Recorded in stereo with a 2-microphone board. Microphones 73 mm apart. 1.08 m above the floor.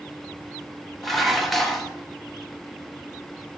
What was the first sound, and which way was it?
Dishes clattering, centre (ahead or behind).